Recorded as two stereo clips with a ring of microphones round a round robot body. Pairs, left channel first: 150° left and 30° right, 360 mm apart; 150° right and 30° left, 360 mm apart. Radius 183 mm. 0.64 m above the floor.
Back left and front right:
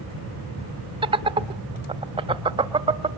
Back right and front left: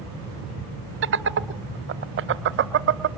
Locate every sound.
1.0 s laughter: 35° left, 0.7 m